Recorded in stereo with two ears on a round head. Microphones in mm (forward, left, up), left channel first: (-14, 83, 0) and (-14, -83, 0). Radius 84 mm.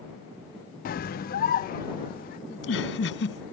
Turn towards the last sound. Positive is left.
turn(degrees=65)  # may be behind; listen again after turning